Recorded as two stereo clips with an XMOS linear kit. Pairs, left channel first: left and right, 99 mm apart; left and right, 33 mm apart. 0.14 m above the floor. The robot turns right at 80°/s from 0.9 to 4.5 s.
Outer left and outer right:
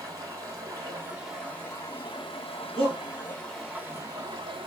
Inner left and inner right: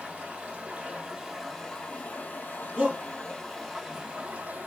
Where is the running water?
35° right, 2.5 m; by 4.7 s 110° right, 2.5 m.